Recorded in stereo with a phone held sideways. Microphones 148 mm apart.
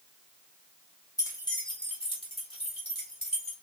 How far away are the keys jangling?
About 1.4 m.